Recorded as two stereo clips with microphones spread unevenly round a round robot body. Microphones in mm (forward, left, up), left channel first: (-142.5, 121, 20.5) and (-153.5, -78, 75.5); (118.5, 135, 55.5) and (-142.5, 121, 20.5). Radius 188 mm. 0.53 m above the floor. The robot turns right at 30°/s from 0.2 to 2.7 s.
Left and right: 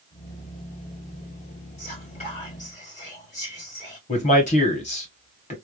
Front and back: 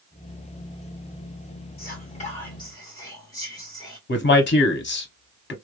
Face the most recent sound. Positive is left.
turn(degrees=50)